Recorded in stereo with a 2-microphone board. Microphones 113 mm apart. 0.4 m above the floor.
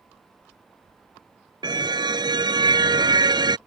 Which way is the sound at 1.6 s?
40° right (ahead or behind).